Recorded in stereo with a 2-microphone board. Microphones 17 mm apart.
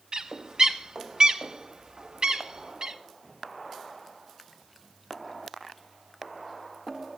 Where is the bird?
50° right (ahead or behind), 0.9 m.